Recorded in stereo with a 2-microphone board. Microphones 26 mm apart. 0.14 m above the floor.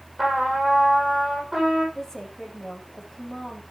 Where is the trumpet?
20° right (ahead or behind), 6 m.